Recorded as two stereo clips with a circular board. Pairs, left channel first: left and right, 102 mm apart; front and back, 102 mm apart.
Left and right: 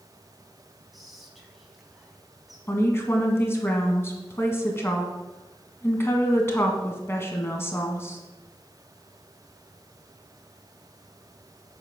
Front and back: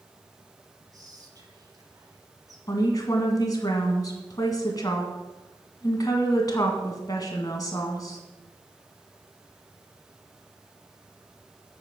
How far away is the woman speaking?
About 1.7 m.